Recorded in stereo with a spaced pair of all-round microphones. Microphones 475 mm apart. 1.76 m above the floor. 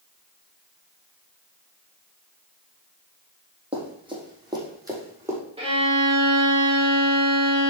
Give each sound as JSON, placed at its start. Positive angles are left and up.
{"t": 3.7, "sound": "running footsteps", "side_deg": -10, "distance_m": 3.5}
{"t": 5.6, "sound": "a violin", "side_deg": -10, "distance_m": 3.0}